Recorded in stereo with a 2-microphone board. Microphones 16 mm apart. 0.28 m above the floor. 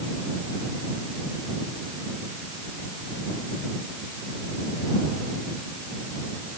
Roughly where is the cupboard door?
No cupboard door in this recording.